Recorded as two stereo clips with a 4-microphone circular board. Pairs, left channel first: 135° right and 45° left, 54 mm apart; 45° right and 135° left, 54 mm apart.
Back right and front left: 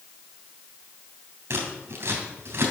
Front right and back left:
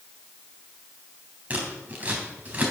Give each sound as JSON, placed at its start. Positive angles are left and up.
{"t": 1.5, "sound": "scissors", "azimuth_deg": 80, "distance_m": 3.0}